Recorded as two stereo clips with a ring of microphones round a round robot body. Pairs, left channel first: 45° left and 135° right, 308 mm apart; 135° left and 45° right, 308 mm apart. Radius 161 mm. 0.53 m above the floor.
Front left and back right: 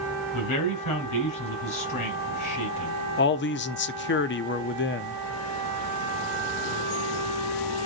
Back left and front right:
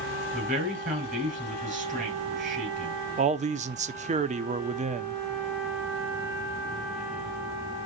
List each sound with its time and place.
0.3 s a man speaking: 20° left, 5.5 m
3.2 s a man speaking: 10° left, 0.8 m